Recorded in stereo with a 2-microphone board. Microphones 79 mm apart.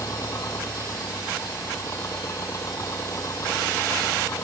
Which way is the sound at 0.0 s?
40° left (ahead or behind).